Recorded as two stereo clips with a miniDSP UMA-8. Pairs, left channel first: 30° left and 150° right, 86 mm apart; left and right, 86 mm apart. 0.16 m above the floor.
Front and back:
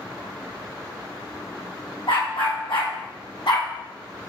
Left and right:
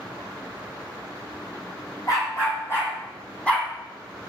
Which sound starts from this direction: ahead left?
A dog barking, at 2.1 s.